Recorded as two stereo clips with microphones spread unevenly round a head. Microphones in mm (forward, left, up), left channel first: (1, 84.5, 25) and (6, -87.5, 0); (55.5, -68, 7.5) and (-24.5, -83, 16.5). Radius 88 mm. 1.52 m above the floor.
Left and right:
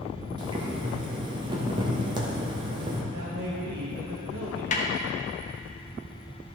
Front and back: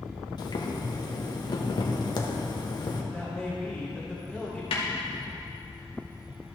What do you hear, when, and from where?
0.4 s boiling: 20° right, 1.2 m
3.1 s a man speaking: 80° right, 1.6 m
4.7 s a snare drum: 40° left, 1.2 m